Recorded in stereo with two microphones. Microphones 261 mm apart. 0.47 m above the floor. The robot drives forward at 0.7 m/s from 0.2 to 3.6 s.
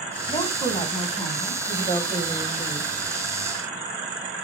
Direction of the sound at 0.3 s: 20° left (ahead or behind).